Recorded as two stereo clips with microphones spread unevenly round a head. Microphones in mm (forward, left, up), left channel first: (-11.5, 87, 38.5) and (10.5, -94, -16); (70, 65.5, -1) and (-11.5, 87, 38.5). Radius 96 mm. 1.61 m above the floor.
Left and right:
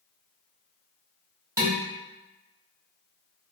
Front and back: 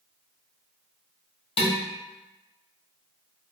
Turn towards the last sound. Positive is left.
turn(degrees=5)